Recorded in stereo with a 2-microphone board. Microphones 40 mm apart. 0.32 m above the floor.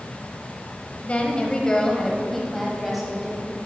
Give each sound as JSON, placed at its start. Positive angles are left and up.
{"t": 1.0, "sound": "a woman speaking", "side_deg": 35, "distance_m": 1.3}